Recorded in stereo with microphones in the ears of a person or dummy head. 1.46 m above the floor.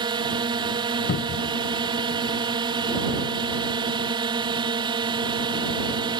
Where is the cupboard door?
45° left (ahead or behind).